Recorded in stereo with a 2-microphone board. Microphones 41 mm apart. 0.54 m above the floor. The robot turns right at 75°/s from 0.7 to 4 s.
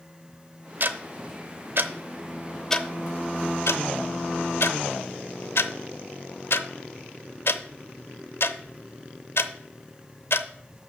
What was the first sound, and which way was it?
Ticking, 50° right (ahead or behind).